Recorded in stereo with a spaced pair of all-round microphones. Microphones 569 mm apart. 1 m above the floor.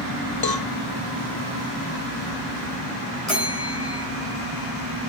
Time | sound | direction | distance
0.4 | a cowbell | 40° left (ahead or behind) | 0.6 m
3.3 | a bell | 85° left | 3.5 m